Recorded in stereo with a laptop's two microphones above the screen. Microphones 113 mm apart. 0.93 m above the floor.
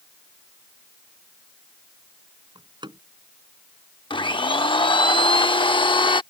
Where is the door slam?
45° right (ahead or behind).